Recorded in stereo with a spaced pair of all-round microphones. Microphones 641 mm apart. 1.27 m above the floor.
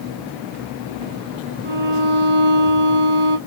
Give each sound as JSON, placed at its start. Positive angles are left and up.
{"t": 1.6, "sound": "a violin", "side_deg": -40, "distance_m": 3.0}